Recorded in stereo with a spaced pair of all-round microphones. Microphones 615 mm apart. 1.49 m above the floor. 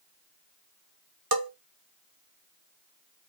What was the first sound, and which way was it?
A bell, 35° right (ahead or behind).